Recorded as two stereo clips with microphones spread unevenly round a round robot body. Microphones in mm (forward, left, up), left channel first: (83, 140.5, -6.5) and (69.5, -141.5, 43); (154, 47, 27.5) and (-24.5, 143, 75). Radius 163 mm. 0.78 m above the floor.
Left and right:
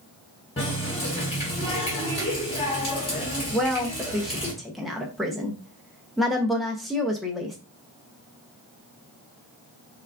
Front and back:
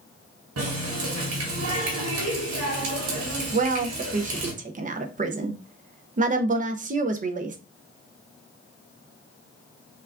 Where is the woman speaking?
150° left, 0.5 m.